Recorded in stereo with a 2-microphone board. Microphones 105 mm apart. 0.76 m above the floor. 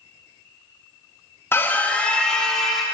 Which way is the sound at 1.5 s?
25° left (ahead or behind).